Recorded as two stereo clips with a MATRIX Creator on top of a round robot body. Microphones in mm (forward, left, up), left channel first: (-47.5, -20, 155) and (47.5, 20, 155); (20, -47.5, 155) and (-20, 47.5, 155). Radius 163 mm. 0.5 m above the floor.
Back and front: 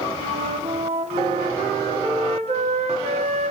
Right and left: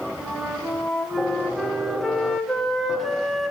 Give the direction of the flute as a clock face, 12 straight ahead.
11 o'clock.